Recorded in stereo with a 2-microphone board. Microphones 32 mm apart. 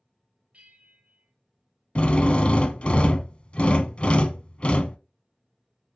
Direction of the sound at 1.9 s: 35° left (ahead or behind).